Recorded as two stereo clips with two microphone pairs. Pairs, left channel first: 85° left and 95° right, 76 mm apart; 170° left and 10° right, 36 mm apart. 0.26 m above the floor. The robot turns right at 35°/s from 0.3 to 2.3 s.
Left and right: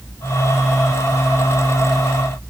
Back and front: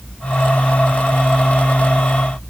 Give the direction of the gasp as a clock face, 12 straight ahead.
I don't hear a gasp.